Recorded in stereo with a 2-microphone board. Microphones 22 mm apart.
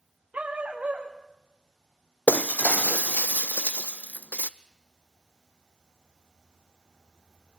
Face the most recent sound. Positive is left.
turn(degrees=80)